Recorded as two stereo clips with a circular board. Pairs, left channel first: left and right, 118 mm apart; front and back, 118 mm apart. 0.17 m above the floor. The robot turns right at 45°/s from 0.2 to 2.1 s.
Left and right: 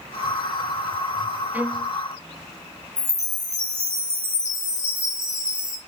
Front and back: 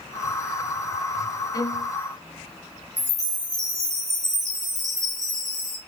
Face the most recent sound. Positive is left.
turn(degrees=-170)